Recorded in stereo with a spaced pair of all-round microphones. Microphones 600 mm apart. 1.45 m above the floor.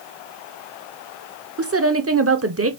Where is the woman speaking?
25° right (ahead or behind), 0.6 m.